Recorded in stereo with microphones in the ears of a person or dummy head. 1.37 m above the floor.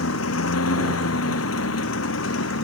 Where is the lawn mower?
80° left; by 2.6 s 75° left (ahead or behind).